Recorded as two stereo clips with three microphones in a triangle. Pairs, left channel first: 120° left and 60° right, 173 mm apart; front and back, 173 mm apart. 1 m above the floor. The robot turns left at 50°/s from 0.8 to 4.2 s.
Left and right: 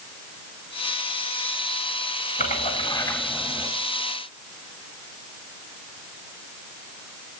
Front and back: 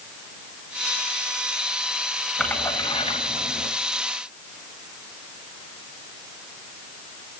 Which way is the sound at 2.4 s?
90° left.